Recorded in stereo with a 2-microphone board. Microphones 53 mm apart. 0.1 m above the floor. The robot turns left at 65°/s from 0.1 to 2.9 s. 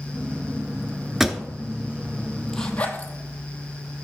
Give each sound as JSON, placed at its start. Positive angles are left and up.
{"t": 1.2, "sound": "a pop", "side_deg": -10, "distance_m": 0.6}
{"t": 2.5, "sound": "a zipper", "side_deg": 5, "distance_m": 1.1}